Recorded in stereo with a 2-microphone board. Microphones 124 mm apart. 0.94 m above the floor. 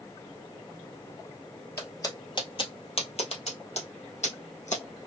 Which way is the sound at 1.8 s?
25° left (ahead or behind).